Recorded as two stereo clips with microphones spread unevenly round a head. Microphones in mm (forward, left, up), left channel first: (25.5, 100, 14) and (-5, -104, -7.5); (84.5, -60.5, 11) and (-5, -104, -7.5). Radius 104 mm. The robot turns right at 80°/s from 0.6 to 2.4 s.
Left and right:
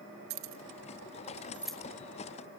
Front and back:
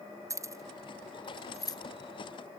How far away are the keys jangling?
About 1.4 m.